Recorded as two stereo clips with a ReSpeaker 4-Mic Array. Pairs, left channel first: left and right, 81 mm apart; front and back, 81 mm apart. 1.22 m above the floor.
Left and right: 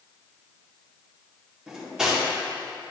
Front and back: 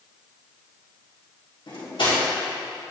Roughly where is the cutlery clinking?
Ahead.